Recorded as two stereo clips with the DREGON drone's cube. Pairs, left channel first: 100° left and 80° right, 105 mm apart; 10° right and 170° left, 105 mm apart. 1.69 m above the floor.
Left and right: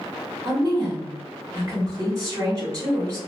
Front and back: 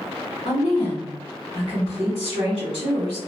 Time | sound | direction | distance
0.5 | a woman speaking | 20° right | 1.9 m